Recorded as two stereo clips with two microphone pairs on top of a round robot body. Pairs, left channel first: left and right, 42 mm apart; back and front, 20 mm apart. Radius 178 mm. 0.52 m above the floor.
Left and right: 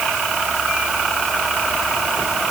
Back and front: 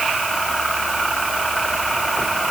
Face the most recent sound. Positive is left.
No sound to turn to.